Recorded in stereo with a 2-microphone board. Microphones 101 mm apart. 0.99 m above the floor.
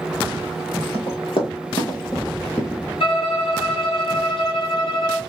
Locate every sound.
0.9 s running footsteps: 65° left (ahead or behind), 2 m; by 2.8 s 20° left (ahead or behind), 1.1 m
3.0 s a violin: 65° left (ahead or behind), 2 m